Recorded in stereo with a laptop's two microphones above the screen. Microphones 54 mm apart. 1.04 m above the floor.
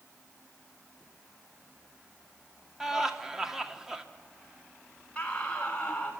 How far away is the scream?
About 6.5 m.